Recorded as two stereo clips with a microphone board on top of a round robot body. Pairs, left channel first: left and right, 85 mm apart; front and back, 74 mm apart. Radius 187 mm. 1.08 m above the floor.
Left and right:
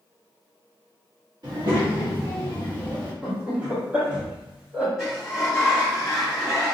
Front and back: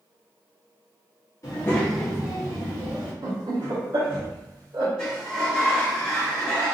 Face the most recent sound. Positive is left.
turn(degrees=5)